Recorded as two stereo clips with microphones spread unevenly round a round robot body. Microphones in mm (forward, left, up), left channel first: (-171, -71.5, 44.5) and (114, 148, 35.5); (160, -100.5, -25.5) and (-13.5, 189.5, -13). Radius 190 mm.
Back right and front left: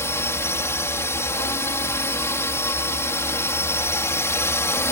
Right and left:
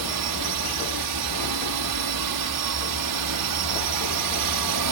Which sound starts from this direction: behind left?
A drone, at 0.0 s.